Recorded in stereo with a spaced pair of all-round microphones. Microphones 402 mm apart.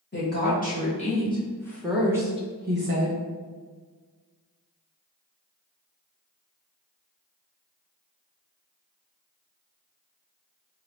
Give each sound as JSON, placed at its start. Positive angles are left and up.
{"t": 0.1, "sound": "a woman speaking", "side_deg": 25, "distance_m": 1.9}